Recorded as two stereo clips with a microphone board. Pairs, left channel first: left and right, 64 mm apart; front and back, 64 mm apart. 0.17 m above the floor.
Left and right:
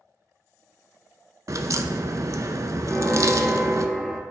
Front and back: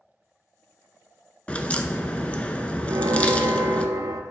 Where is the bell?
170° left, 0.7 m.